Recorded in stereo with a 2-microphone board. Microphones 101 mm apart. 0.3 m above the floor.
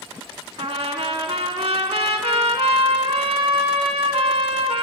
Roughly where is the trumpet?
Right.